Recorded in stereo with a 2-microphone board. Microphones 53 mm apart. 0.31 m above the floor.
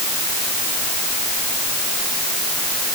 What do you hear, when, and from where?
Only background noise.